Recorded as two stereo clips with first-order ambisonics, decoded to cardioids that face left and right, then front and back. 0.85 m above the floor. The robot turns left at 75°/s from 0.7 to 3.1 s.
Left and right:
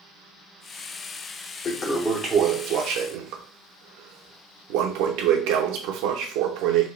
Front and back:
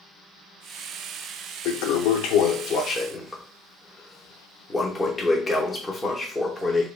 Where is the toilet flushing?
30° left, 0.8 m; by 6.9 s 80° right, 0.8 m.